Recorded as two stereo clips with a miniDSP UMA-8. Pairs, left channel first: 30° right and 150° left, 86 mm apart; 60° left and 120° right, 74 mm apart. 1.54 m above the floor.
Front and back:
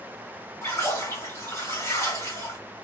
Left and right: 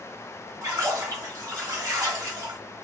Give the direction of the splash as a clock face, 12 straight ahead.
3 o'clock.